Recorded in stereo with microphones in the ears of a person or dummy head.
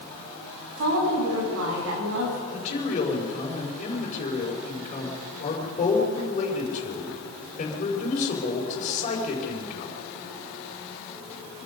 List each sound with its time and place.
0.8 s a woman speaking: 75° right (ahead or behind), 10 m
2.5 s a man speaking: 40° left (ahead or behind), 5 m